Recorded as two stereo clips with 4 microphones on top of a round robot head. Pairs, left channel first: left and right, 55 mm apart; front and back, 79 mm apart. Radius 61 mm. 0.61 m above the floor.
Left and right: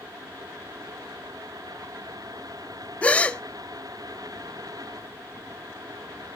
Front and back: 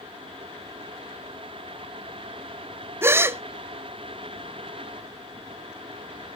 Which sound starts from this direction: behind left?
A gasp, at 3.0 s.